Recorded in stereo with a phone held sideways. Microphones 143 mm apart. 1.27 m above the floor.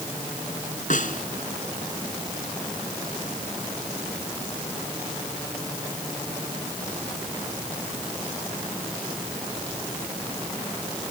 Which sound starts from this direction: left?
A snare drum, at 0.9 s.